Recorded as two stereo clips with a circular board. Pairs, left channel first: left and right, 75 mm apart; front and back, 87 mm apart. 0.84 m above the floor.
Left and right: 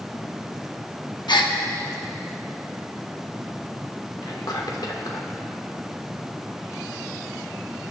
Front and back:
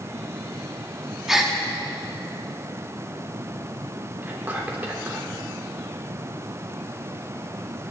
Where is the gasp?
95° left, 1.1 m.